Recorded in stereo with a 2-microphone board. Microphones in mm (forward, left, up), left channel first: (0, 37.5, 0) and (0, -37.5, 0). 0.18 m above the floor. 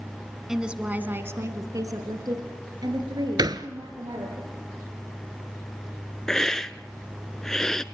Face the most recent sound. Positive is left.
turn(degrees=10)  # may be behind; listen again after turning